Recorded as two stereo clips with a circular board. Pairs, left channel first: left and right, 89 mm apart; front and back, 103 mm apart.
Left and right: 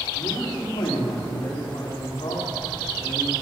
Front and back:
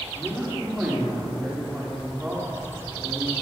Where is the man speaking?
105° left, 5.5 m.